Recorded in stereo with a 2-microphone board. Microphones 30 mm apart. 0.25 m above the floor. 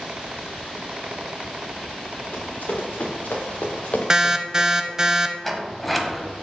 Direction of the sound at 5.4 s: 5° left (ahead or behind).